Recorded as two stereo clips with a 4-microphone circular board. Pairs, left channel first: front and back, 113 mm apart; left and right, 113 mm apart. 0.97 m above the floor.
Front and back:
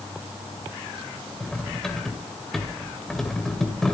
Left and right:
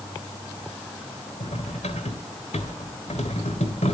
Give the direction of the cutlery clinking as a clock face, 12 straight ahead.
9 o'clock.